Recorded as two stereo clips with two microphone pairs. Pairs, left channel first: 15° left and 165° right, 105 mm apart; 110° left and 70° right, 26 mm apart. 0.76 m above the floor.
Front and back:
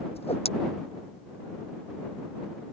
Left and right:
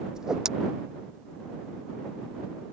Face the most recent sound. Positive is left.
turn(degrees=0)